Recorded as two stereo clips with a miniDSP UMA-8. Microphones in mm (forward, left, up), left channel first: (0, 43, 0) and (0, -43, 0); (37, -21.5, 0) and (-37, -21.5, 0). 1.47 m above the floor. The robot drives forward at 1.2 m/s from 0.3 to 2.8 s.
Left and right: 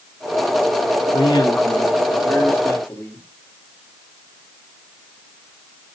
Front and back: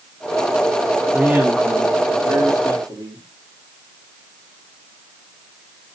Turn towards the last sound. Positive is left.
turn(degrees=155)